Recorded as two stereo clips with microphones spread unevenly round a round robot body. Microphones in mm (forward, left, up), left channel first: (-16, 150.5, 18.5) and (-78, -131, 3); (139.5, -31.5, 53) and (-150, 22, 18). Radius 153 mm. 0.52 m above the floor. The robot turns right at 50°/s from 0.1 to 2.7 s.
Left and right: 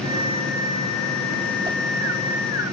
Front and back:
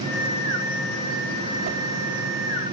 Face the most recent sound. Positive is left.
turn(degrees=-115)